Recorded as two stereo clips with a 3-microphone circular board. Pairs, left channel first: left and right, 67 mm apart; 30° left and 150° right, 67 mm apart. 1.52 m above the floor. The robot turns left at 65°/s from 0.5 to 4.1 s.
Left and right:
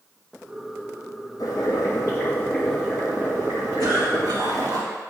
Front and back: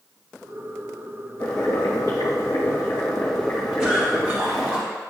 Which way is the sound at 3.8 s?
65° right.